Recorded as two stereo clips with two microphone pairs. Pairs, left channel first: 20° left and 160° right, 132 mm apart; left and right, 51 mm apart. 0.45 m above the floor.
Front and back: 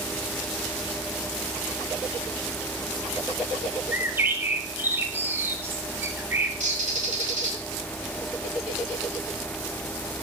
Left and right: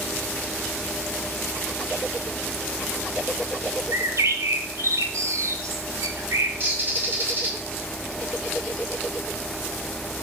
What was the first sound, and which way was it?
A bird, 80° right.